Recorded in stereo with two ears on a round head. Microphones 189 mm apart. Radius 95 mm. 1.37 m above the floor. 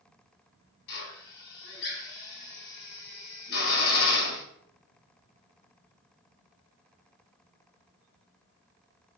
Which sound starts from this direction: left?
A drill, at 0.9 s.